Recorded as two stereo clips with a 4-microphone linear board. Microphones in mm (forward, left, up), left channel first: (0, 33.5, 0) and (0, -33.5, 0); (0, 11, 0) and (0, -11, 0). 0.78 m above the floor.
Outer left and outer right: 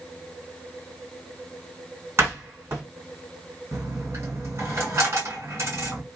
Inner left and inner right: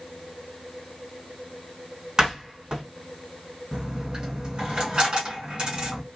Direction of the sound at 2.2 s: 40° right (ahead or behind).